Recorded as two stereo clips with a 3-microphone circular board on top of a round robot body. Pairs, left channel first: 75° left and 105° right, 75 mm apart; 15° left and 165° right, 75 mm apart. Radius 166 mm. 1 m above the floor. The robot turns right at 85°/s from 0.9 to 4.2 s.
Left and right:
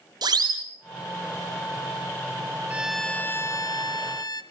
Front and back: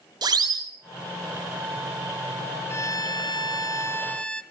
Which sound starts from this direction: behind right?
A siren, at 0.2 s.